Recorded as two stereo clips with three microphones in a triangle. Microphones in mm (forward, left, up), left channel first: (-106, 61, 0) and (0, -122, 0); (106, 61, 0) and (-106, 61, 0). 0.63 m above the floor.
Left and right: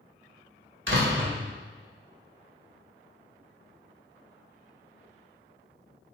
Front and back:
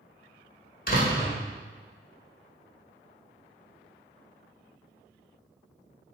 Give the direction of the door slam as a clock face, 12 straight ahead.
1 o'clock.